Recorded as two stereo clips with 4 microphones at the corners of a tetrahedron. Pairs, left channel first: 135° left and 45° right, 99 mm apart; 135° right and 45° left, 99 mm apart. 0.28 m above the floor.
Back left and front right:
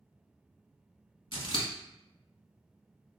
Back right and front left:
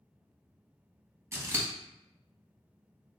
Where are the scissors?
105° left, 0.6 m.